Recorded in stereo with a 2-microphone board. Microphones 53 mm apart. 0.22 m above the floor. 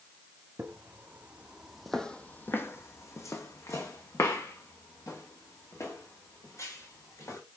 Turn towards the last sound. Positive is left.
turn(degrees=75)  # may be behind; listen again after turning